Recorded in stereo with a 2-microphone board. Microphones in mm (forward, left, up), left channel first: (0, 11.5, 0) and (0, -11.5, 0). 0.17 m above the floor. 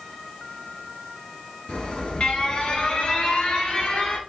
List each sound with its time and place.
1.7 s an alarm: 50° left (ahead or behind), 1.9 m